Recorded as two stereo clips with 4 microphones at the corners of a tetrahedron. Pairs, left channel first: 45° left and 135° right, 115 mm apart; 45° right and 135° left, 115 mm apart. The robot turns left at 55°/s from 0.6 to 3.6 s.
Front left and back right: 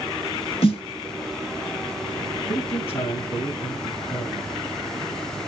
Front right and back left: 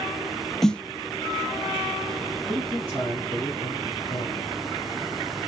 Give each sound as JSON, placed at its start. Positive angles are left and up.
{"t": 0.6, "sound": "a snare drum", "azimuth_deg": 40, "distance_m": 0.8}
{"t": 2.5, "sound": "a man speaking", "azimuth_deg": 50, "distance_m": 2.5}